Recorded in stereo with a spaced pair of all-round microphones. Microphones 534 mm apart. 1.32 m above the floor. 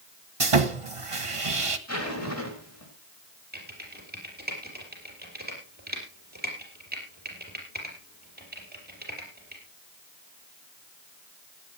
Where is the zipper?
30° left (ahead or behind), 4.5 m.